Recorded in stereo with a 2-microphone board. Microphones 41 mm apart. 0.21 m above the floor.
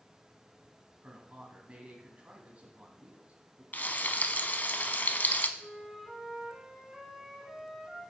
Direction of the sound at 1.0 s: 35° right (ahead or behind).